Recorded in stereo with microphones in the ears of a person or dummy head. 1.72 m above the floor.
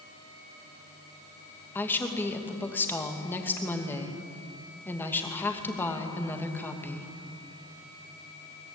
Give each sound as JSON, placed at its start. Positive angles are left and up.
{"t": 1.8, "sound": "a woman speaking", "side_deg": 10, "distance_m": 2.5}